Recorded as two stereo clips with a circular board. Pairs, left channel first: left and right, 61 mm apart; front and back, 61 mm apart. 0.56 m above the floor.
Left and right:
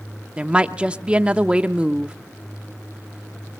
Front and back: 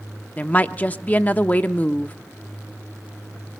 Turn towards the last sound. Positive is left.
turn(degrees=-35)